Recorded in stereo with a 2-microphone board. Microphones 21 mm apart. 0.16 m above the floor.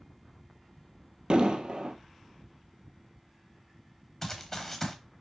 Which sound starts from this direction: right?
An explosion, at 1.3 s.